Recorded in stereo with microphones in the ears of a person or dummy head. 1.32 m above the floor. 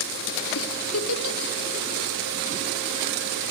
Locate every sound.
0.6 s a giggle: 70° left (ahead or behind), 1.4 m